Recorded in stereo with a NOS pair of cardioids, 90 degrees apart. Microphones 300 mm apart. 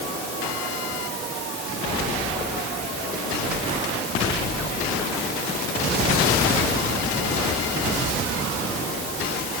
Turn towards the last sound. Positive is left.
No sound to turn to.